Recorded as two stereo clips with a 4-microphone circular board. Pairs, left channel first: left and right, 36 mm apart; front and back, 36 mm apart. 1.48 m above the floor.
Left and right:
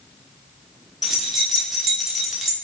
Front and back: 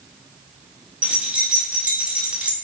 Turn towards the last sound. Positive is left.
turn(degrees=-170)